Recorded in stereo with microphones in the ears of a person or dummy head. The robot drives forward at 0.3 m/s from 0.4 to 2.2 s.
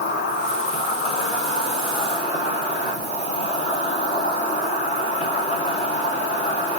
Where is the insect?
55° left (ahead or behind), 0.7 m; by 6.8 s 35° left (ahead or behind), 1.1 m.